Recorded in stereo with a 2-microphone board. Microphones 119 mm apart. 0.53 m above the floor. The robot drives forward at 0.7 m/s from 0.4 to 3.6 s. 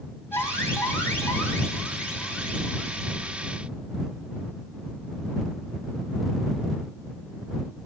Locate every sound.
0.3 s an alarm: 15° left (ahead or behind), 4 m; by 3.4 s 10° left (ahead or behind), 6 m